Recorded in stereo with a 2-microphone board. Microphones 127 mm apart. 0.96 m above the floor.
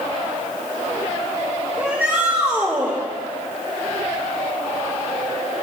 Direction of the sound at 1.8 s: 10° right (ahead or behind).